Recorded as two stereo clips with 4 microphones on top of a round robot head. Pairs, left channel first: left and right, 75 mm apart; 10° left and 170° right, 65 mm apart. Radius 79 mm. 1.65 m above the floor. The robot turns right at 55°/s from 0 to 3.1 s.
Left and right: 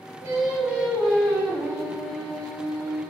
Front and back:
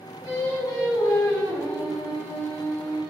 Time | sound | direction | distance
0.2 | singing | 40° right | 5 m